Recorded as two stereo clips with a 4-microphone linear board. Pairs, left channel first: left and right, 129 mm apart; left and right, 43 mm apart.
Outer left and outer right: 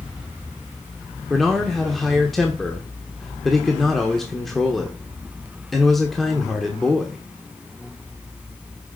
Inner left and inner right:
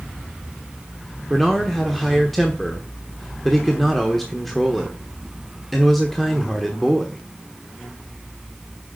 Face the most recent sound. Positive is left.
turn(degrees=0)  # may be behind; listen again after turning